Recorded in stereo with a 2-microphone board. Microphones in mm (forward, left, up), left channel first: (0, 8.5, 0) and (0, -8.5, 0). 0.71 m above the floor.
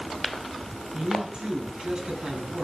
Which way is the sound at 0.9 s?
60° right (ahead or behind).